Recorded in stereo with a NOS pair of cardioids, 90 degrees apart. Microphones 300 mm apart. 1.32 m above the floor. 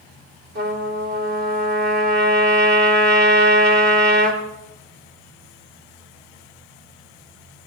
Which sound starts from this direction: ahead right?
A trumpet, at 0.6 s.